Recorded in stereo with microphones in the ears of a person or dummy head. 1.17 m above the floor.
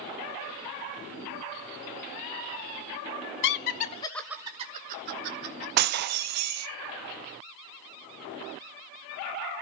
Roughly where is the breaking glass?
Right.